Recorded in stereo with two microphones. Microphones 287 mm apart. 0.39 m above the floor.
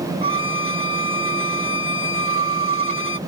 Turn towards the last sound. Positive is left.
turn(degrees=45)  # may be behind; listen again after turning